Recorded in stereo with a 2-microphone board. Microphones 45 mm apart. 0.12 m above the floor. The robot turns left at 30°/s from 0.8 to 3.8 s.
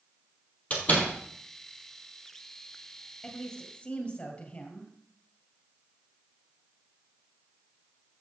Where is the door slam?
35° left (ahead or behind), 2.5 m; by 1.1 s 45° left (ahead or behind), 2.5 m.